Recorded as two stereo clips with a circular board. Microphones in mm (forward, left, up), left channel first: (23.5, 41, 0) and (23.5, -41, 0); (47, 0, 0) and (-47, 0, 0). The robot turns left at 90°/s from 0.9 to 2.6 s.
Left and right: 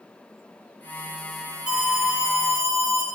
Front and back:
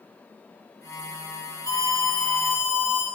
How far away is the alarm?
About 2 m.